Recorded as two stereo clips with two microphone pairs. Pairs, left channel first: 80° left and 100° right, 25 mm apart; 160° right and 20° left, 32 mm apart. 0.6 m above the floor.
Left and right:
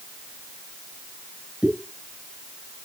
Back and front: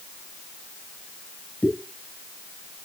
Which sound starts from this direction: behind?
A pop, at 1.6 s.